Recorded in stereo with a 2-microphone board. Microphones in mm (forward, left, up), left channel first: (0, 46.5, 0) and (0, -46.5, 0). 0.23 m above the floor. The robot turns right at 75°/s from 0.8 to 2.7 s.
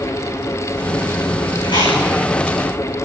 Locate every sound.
1.6 s chewing: 55° left (ahead or behind), 6.5 m; by 2.0 s 85° left, 6.5 m